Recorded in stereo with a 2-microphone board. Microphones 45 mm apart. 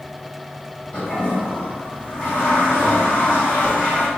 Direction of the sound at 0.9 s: 25° left (ahead or behind).